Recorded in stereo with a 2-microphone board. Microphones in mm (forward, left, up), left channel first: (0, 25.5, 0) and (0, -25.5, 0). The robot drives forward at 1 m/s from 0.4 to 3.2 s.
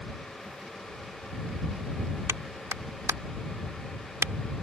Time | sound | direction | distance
2.3 | a clap | 75° right (ahead or behind) | ?